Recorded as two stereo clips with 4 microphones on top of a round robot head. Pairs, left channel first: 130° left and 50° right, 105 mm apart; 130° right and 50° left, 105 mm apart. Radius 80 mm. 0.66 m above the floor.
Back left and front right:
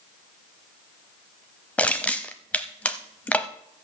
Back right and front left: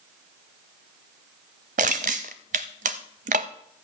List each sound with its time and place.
1.8 s crushing: 55° left, 0.6 m